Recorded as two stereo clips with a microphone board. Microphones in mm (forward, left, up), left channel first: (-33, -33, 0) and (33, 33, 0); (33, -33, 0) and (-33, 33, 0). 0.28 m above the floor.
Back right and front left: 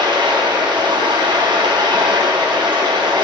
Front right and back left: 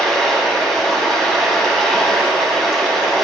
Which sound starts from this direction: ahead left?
Running water, at 0.0 s.